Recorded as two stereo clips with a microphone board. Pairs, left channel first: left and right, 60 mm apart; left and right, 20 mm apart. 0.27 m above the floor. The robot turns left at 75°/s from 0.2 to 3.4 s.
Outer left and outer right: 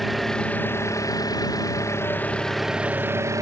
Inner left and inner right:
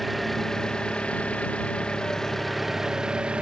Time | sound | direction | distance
0.0 | an engine running | straight behind | ?